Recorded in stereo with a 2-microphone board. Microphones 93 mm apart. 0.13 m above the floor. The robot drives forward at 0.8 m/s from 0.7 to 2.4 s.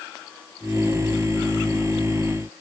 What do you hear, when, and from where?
Only background noise.